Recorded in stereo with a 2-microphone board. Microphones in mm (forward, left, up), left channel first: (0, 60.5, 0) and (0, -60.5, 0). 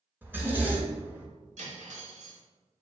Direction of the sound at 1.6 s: 70° right (ahead or behind).